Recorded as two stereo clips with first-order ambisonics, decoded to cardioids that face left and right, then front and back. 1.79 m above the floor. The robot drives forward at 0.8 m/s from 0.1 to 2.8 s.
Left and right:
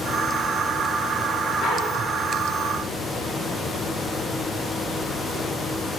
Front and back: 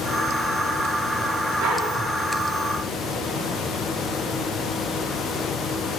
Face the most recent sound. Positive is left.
turn(degrees=160)